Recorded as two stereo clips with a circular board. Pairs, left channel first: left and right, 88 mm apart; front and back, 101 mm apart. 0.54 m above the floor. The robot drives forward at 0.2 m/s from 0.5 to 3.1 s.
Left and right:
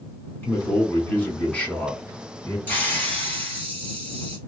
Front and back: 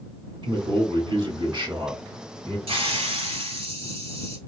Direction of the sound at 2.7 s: 160° left.